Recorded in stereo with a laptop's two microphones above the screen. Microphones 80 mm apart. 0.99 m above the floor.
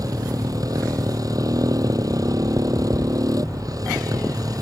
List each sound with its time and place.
0.0 s a motorcycle: 50° right (ahead or behind)